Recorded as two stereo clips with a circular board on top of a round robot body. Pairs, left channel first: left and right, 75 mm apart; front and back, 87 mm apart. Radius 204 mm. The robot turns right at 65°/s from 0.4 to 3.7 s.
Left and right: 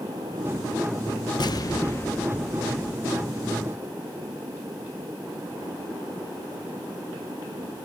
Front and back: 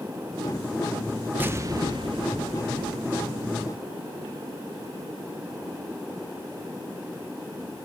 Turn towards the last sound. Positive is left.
turn(degrees=-100)